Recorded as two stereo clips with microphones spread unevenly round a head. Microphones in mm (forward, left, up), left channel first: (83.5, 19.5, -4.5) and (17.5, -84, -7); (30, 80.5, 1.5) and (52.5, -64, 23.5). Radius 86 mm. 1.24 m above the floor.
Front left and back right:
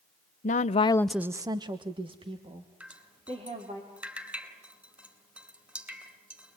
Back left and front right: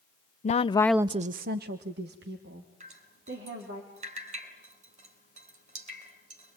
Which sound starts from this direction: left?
A woman speaking, at 0.4 s.